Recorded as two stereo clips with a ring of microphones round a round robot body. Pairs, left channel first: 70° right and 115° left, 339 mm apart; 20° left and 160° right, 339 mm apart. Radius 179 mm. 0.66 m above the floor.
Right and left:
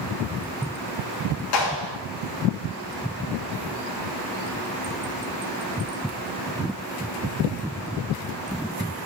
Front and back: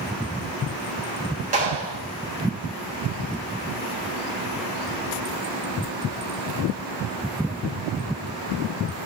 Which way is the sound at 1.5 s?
90° right.